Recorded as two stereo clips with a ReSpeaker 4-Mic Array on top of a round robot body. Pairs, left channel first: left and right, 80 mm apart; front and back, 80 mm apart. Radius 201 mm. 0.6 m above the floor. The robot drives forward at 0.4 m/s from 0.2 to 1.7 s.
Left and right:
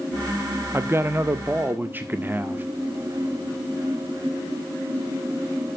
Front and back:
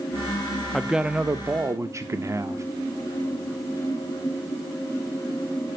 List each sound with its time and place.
0.7 s a man speaking: 90° right, 0.7 m; by 2.6 s 145° right, 0.8 m